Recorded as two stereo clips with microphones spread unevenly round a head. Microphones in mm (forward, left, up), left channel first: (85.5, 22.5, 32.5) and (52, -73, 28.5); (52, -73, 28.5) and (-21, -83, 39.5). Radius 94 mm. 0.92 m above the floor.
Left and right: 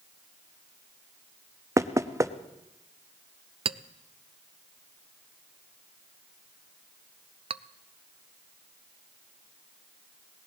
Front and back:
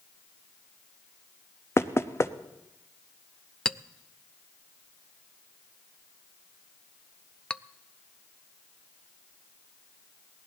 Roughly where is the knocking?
Ahead right.